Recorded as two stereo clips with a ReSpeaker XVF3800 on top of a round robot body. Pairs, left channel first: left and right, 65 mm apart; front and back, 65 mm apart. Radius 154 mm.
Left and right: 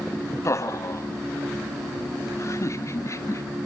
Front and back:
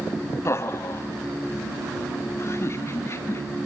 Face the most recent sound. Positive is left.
turn(degrees=45)